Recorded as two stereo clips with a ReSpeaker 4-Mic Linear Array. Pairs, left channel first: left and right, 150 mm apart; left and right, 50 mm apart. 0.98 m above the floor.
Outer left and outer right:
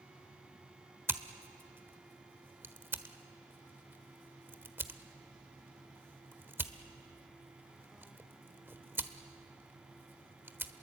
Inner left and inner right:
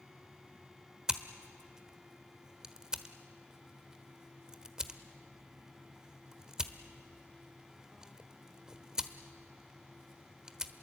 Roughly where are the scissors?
Centre.